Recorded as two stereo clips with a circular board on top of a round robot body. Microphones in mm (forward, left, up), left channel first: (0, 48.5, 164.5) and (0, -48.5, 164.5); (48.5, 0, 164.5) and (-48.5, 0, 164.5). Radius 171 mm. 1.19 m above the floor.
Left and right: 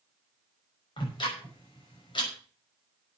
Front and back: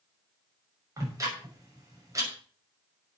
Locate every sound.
1.0 s ticking: 125° left, 6 m